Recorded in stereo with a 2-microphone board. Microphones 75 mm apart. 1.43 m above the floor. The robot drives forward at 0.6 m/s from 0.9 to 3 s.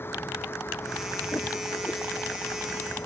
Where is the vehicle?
35° left (ahead or behind).